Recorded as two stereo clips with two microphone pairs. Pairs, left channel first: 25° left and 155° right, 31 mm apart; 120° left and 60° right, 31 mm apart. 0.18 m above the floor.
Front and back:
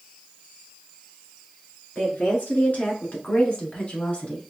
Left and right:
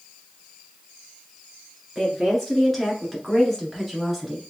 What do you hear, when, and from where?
1.9 s a woman speaking: 40° left, 2.5 m; by 4.5 s 25° left, 1.2 m